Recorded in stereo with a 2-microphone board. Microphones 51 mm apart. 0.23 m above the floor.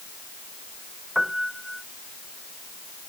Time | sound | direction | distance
1.1 | a piano | 5° right (ahead or behind) | ?